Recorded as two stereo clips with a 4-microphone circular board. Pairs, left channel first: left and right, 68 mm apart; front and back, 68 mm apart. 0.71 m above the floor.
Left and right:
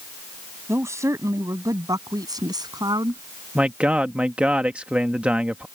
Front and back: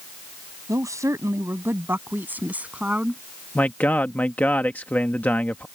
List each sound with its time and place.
0.7 s a woman speaking: 140° right; by 3.2 s 105° right
3.5 s a man speaking: 40° right